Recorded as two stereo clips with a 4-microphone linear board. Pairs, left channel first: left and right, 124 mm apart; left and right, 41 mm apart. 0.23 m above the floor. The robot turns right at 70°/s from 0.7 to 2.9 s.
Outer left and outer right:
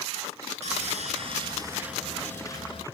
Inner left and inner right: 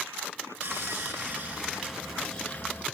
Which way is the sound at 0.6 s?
95° right.